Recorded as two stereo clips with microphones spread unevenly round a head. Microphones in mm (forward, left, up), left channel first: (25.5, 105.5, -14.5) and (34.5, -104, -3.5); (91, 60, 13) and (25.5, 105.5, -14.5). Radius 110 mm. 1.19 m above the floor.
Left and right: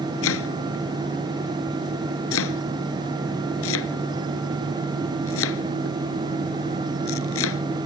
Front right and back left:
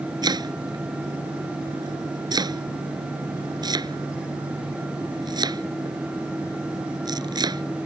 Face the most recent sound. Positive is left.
turn(degrees=110)